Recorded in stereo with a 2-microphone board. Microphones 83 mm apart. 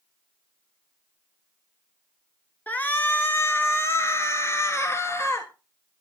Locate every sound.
2.7 s a shout: 20° left (ahead or behind), 1.6 m; by 5.5 s 30° left (ahead or behind), 2.5 m